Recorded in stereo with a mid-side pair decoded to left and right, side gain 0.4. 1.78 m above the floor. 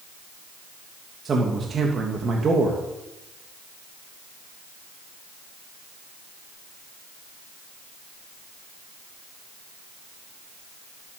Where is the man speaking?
50° right, 3 m.